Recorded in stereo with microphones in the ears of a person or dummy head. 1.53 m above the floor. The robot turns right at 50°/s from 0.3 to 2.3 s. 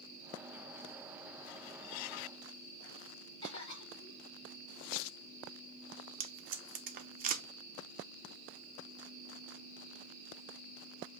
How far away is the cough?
About 2.5 m.